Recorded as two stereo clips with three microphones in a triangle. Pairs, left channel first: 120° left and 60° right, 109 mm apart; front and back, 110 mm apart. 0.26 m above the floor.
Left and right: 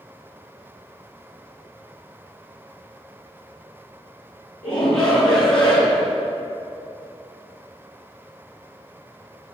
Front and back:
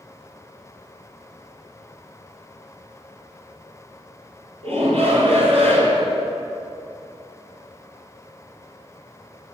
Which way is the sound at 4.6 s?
155° right.